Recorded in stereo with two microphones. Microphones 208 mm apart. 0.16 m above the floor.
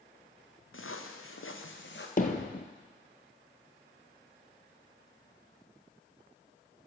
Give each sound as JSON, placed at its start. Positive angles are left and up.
{"t": 0.7, "sound": "footsteps", "side_deg": 70, "distance_m": 1.6}
{"t": 2.2, "sound": "hammering", "side_deg": 40, "distance_m": 1.2}